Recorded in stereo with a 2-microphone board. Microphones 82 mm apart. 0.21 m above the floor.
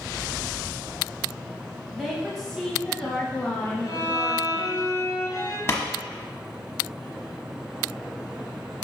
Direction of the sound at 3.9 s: 50° left (ahead or behind).